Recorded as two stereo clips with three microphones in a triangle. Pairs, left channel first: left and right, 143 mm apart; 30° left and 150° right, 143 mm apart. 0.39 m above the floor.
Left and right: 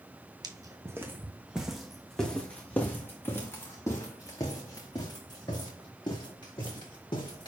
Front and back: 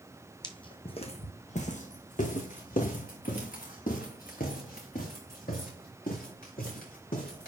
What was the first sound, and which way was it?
Footsteps, 30° right.